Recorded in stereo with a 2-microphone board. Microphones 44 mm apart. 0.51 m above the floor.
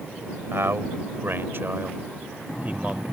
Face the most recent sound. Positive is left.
turn(degrees=-30)  # may be behind; listen again after turning